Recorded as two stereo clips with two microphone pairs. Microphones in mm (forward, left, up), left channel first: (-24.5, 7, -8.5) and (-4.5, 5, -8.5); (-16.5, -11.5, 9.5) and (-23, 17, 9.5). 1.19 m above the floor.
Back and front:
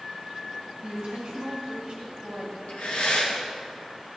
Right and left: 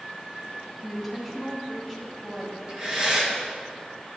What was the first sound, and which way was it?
A woman speaking, 20° left.